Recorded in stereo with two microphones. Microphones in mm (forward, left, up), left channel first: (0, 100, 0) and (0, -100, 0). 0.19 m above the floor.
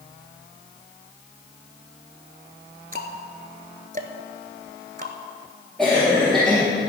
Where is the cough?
5° left (ahead or behind), 3.5 m.